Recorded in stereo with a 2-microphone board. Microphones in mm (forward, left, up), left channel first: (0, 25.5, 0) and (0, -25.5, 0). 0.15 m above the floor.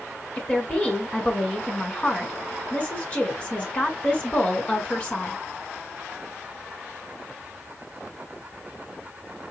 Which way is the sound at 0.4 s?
25° left (ahead or behind).